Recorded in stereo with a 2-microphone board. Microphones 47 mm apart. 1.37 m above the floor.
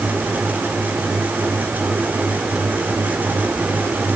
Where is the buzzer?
I don't hear a buzzer.